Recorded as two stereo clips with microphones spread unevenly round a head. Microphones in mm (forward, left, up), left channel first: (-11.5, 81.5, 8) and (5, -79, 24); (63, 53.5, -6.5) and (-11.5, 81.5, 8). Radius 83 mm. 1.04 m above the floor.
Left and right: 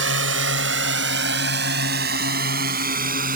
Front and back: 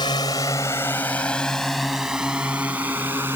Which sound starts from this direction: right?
A drone, at 0.0 s.